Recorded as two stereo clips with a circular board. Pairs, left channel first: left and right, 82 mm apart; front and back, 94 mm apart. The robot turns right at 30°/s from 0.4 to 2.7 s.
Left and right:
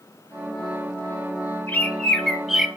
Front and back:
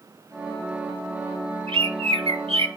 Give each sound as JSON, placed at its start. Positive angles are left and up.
{"t": 1.7, "sound": "a bird", "azimuth_deg": 160, "distance_m": 1.2}